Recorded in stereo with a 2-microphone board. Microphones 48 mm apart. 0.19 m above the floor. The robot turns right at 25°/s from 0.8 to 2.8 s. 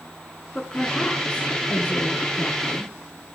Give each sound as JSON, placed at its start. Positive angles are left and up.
{"t": 0.6, "sound": "a woman speaking", "azimuth_deg": 20, "distance_m": 2.5}